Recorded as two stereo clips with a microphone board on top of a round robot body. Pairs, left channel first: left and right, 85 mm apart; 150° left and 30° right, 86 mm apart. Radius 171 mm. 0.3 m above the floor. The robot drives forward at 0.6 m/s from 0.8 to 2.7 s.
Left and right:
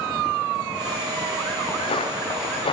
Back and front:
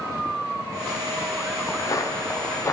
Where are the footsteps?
100° left, 3.5 m; by 2.7 s 90° left, 3.5 m.